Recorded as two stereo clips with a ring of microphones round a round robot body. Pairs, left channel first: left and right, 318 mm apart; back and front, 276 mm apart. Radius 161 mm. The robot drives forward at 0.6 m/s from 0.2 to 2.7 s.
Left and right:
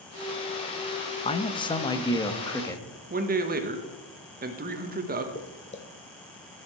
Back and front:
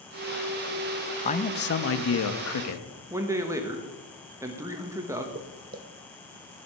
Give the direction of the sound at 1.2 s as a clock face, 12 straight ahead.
7 o'clock.